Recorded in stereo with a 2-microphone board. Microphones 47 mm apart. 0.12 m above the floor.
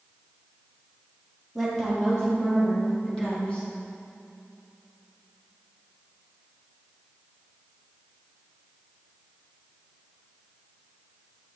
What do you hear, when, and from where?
1.6 s a woman speaking: 5° left (ahead or behind), 3 m; by 3.6 s 25° left (ahead or behind), 5 m